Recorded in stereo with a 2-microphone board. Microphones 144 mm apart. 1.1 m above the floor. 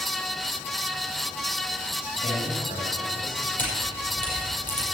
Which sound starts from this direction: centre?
A camera shutter, at 3.6 s.